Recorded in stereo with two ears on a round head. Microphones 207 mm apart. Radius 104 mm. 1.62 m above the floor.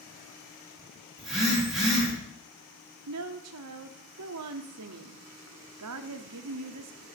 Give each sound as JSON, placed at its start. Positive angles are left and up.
{"t": 1.2, "sound": "a phone buzzing", "side_deg": 0, "distance_m": 3.5}
{"t": 3.1, "sound": "a woman speaking", "side_deg": -75, "distance_m": 0.7}